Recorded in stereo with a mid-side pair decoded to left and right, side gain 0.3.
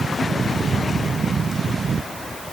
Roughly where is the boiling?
No boiling in this recording.